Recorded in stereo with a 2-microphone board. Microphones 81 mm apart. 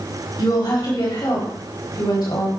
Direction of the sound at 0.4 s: 65° left (ahead or behind).